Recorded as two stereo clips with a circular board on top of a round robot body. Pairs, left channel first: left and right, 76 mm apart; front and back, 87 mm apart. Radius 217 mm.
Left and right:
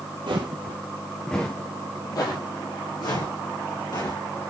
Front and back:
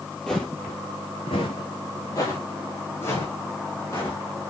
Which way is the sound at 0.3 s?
85° right.